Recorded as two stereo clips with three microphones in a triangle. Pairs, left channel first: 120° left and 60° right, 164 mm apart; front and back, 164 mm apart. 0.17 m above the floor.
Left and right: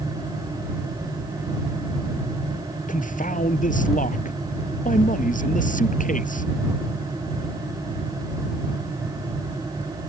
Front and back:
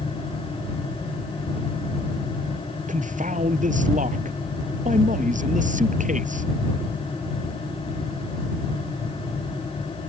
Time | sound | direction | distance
2.9 | a man speaking | 150° left | ?